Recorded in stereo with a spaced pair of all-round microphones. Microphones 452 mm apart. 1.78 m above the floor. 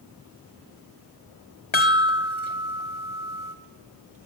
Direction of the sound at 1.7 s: 70° left (ahead or behind).